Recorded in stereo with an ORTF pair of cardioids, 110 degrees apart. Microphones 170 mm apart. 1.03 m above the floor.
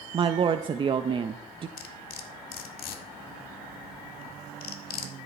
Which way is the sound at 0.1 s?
30° right.